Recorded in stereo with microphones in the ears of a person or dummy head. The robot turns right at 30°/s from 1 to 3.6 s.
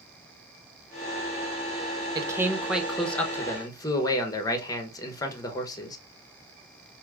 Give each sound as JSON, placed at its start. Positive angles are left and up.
{"t": 2.1, "sound": "a man speaking", "azimuth_deg": -20, "distance_m": 0.9}